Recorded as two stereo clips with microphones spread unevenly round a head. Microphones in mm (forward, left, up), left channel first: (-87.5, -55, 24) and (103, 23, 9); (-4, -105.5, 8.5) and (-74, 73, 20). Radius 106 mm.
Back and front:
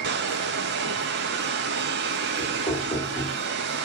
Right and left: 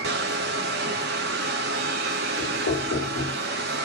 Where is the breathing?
I don't hear breathing.